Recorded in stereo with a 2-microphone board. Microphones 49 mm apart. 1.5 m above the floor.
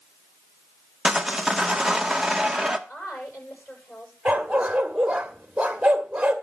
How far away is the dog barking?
About 1.6 m.